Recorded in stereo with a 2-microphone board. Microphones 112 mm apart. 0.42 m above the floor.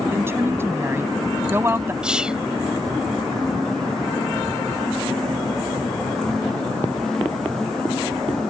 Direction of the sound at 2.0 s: 10° right (ahead or behind).